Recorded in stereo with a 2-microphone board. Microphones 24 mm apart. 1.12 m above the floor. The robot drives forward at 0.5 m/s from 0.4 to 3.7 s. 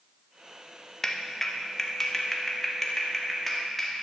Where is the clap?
15° left (ahead or behind), 1.1 m; by 4.0 s 5° left (ahead or behind), 2.5 m.